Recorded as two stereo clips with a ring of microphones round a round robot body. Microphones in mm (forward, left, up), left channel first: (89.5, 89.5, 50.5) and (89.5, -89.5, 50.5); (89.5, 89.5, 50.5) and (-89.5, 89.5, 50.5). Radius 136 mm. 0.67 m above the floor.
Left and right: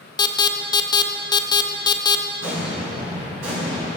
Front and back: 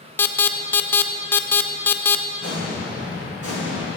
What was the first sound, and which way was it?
An alarm, 65° left.